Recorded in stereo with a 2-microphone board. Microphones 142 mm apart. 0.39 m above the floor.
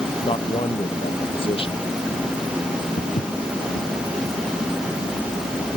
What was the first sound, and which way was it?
A man speaking, 40° left (ahead or behind).